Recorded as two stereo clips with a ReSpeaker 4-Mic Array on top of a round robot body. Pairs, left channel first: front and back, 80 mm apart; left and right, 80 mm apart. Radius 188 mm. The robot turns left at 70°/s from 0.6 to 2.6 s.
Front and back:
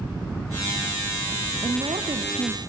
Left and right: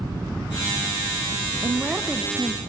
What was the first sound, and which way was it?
A woman speaking, 155° right.